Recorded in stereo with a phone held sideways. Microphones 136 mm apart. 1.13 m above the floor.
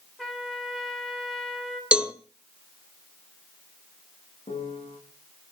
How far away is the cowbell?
About 0.9 m.